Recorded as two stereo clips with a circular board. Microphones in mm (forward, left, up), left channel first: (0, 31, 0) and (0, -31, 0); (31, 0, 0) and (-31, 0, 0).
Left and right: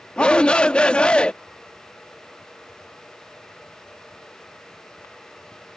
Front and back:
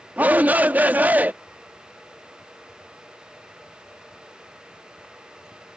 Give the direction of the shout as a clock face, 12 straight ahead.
7 o'clock.